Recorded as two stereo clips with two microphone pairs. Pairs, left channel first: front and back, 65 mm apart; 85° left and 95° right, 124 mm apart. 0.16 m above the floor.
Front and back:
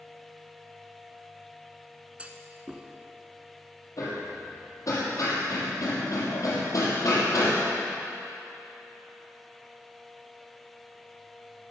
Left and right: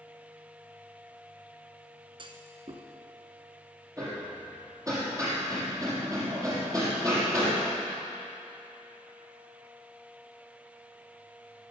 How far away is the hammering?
About 5.5 m.